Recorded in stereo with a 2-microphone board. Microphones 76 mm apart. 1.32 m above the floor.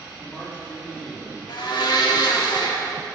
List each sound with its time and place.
0.2 s a man speaking: 10° left (ahead or behind), 3.5 m
1.5 s a blender: 75° left (ahead or behind), 1.7 m